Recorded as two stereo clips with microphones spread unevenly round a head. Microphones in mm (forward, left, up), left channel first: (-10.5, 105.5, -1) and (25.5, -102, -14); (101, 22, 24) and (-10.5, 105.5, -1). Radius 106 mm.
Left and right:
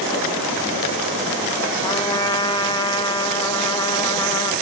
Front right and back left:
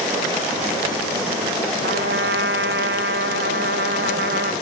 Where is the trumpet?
170° left, 0.5 m.